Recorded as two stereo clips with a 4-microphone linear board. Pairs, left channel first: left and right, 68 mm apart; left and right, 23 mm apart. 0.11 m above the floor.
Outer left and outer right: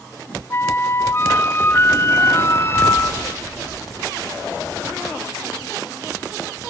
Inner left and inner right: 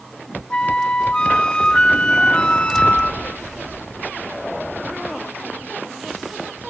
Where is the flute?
35° left (ahead or behind), 0.5 m.